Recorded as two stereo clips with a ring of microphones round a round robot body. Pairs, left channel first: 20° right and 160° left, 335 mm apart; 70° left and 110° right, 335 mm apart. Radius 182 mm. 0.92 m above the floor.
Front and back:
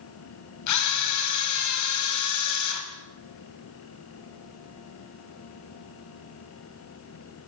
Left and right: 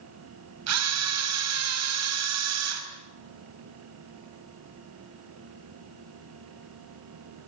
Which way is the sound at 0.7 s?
65° right.